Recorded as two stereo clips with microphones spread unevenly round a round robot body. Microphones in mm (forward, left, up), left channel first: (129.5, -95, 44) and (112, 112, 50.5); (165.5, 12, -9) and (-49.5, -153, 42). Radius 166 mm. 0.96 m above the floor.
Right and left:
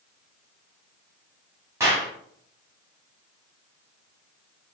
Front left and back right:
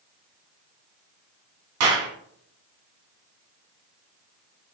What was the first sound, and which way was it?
A clap, 175° left.